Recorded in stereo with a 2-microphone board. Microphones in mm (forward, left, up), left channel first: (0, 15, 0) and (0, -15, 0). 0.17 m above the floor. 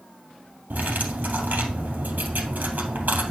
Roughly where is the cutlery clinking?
Right.